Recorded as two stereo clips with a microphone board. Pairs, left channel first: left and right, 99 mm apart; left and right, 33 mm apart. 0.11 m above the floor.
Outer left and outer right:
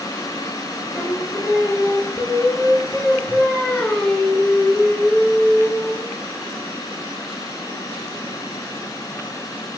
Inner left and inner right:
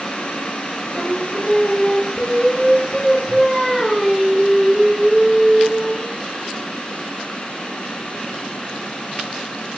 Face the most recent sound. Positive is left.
turn(degrees=10)  # may be behind; listen again after turning